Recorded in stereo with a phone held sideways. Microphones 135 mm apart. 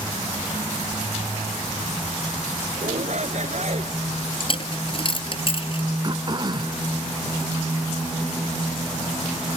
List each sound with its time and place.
2.8 s a shout: 60° right (ahead or behind)
4.4 s a dropped coin: 45° left (ahead or behind)
6.0 s throat clearing: 35° right (ahead or behind)